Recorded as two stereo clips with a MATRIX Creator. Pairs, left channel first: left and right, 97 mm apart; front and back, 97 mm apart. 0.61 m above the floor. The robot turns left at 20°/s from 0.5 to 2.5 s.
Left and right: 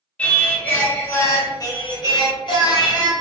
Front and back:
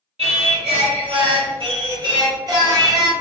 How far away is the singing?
About 0.7 m.